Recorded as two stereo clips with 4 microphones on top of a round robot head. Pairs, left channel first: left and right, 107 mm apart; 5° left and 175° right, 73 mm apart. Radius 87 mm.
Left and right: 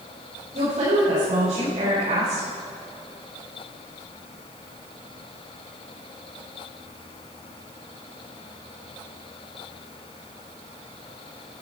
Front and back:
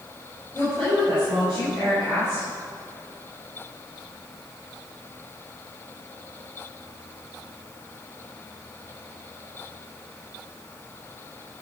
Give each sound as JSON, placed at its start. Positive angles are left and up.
{"t": 0.5, "sound": "a woman speaking", "azimuth_deg": -70, "distance_m": 5.0}